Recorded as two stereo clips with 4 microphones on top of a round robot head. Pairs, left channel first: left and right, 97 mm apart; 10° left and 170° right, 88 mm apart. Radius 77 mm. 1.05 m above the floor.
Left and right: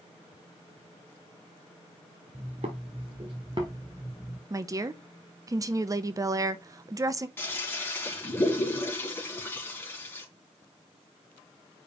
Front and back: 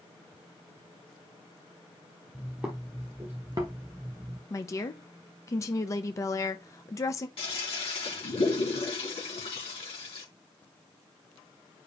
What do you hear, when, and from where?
2.3 s footsteps: 80° right, 1.7 m; by 4.4 s 175° left, 1.2 m
4.5 s a woman speaking: 40° right, 0.6 m
7.4 s a toilet flushing: 25° left, 2.5 m